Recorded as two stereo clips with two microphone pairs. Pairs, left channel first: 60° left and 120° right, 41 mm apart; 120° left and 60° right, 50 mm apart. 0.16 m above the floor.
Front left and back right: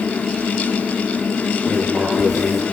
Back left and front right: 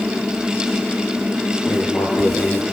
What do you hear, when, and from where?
1.7 s writing: 160° left, 4 m